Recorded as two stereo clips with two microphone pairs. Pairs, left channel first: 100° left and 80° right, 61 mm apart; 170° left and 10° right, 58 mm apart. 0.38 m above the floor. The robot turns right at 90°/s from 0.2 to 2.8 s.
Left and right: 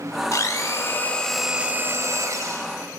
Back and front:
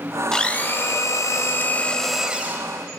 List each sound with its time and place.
0.3 s a blender: 95° left, 1.1 m; by 2.7 s 50° right, 1.1 m